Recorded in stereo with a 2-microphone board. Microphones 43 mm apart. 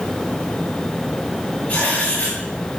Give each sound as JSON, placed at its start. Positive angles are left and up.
{"t": 1.7, "sound": "writing", "side_deg": 25, "distance_m": 7.0}